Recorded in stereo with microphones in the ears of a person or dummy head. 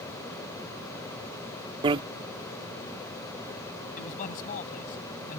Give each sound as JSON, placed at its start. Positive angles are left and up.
{"t": 1.8, "sound": "a bicycle bell", "side_deg": -25}
{"t": 4.0, "sound": "a man speaking", "side_deg": 40}